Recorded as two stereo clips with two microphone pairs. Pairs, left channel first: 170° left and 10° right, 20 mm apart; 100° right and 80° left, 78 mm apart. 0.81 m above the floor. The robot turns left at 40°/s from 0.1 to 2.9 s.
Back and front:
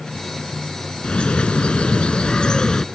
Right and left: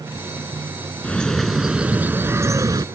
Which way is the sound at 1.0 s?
170° right.